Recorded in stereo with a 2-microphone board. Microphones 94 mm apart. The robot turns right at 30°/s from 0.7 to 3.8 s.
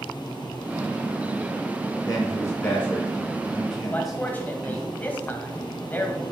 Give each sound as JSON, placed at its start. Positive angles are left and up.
{"t": 2.1, "sound": "a man speaking", "side_deg": 40, "distance_m": 2.5}
{"t": 3.9, "sound": "a man speaking", "side_deg": 20, "distance_m": 1.3}